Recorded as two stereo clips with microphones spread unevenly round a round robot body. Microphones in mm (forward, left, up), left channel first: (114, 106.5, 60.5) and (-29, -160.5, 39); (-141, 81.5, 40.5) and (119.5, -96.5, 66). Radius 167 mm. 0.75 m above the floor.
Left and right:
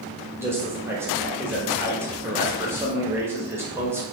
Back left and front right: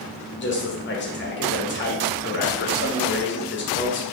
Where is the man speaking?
170° left, 1.2 m.